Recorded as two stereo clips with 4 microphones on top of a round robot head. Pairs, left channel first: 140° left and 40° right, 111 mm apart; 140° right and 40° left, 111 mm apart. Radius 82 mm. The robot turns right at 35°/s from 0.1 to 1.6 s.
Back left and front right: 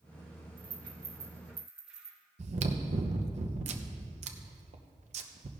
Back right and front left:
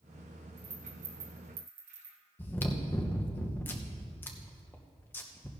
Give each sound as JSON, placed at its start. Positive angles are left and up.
{"t": 0.6, "sound": "a rattle", "azimuth_deg": 5, "distance_m": 1.5}
{"t": 2.4, "sound": "chewing", "azimuth_deg": -65, "distance_m": 0.7}